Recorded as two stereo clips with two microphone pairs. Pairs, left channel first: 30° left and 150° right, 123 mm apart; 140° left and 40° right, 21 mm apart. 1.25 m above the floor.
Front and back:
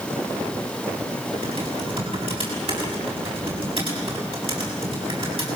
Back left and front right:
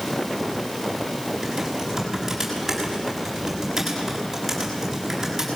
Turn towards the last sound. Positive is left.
turn(degrees=-110)